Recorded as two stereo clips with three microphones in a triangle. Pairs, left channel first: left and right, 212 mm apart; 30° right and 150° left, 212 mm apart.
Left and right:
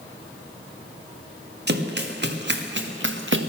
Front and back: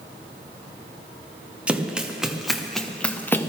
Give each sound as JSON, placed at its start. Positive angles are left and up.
{"t": 1.7, "sound": "running footsteps", "azimuth_deg": -125, "distance_m": 2.5}